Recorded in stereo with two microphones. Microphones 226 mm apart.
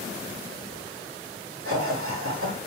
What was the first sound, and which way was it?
Laughter, 75° right (ahead or behind).